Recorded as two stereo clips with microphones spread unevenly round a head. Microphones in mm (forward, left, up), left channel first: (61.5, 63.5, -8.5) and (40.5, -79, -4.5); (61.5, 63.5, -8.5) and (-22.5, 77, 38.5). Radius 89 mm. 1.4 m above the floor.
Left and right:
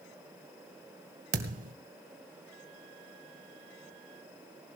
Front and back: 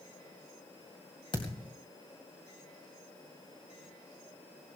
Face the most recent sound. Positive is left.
turn(degrees=-90)